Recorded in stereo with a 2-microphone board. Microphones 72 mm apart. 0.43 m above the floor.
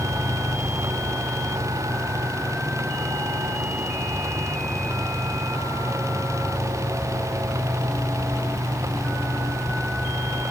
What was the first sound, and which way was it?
Only background noise.